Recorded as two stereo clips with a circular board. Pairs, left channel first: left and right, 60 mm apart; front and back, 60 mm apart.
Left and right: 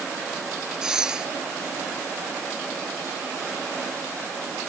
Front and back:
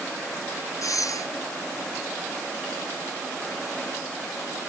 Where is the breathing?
10° right.